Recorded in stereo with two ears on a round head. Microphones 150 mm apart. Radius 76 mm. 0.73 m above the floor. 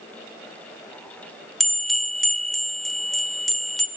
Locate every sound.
1.6 s a bell: centre (ahead or behind), 0.6 m